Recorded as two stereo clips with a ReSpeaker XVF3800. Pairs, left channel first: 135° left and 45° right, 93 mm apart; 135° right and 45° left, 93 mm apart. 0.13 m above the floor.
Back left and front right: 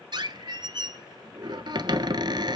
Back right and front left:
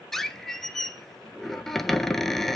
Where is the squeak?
50° right, 0.9 m.